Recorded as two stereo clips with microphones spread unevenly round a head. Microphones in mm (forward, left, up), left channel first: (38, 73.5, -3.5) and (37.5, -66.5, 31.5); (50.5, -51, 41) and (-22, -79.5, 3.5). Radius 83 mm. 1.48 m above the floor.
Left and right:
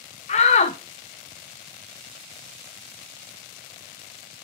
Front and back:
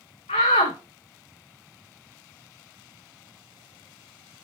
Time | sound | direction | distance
0.3 | a shout | 65° left | 0.6 m